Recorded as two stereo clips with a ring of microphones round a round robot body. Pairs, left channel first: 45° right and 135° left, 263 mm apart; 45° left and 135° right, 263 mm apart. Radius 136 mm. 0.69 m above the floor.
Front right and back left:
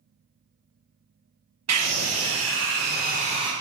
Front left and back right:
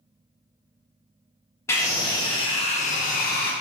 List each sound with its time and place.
1.7 s a scream: 125° left, 1.4 m; by 3.5 s 70° left, 0.9 m